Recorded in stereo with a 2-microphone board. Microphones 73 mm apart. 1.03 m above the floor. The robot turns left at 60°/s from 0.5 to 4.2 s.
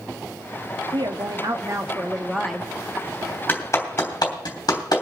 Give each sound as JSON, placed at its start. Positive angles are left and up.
{"t": 0.9, "sound": "a woman speaking", "azimuth_deg": -85, "distance_m": 1.6}
{"t": 3.5, "sound": "a clap", "side_deg": 25, "distance_m": 3.0}